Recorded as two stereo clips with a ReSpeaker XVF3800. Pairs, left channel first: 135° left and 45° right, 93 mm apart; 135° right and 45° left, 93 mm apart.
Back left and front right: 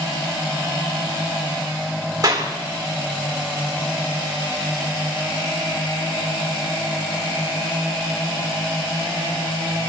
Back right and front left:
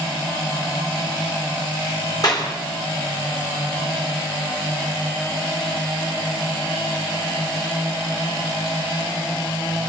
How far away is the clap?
About 3 m.